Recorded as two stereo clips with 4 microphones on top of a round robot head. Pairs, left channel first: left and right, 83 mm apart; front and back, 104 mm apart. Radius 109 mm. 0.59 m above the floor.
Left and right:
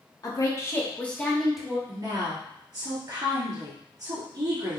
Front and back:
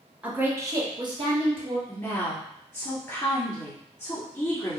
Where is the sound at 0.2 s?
105° left, 1.3 m; by 1.8 s 175° right, 1.7 m.